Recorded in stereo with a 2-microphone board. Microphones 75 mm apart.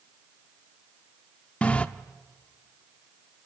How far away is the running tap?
About 0.6 m.